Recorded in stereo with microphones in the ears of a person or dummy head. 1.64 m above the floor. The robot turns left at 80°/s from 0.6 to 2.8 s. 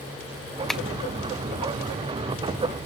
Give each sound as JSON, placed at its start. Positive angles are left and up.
{"t": 0.7, "sound": "tapping", "side_deg": 5, "distance_m": 0.6}